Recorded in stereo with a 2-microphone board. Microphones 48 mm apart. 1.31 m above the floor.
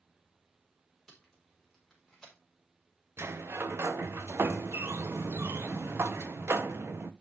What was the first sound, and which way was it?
Tape being pulled, 10° left (ahead or behind).